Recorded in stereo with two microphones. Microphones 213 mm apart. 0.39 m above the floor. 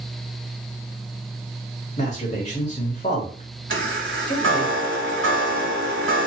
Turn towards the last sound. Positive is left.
turn(degrees=-70)  # may be behind; listen again after turning